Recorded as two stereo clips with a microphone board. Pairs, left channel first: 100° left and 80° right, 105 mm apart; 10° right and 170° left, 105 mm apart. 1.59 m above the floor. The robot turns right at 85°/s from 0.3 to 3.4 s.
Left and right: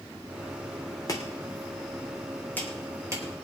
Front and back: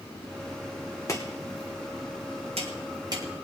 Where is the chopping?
45° left, 3 m; by 3.2 s 130° right, 3 m.